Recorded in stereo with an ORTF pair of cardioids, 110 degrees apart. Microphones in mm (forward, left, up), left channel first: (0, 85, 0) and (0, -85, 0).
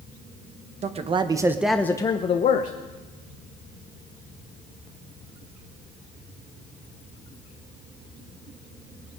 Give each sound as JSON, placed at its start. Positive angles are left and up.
{"t": 0.8, "sound": "a man speaking", "azimuth_deg": -40, "distance_m": 1.1}